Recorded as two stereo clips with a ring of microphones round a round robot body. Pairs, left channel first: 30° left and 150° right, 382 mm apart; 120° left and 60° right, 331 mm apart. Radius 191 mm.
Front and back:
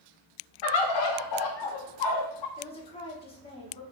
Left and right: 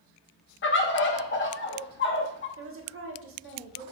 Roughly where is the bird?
Ahead left.